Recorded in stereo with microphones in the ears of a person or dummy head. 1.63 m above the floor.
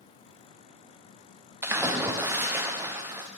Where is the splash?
10° right (ahead or behind), 0.5 m.